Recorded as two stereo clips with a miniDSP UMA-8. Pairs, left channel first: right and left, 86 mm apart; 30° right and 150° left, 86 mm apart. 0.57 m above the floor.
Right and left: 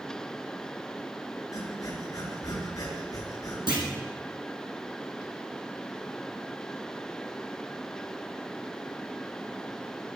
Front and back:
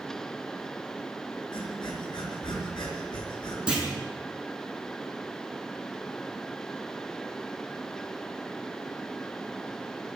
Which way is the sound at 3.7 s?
70° left.